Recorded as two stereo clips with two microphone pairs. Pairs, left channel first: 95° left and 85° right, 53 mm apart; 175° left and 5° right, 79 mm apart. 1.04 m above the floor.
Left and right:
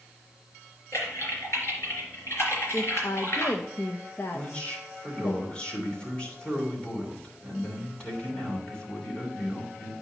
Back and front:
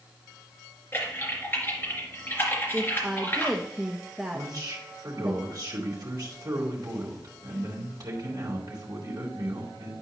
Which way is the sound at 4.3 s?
30° left.